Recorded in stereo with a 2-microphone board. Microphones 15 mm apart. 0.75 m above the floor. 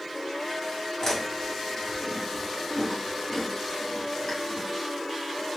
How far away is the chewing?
About 2.0 m.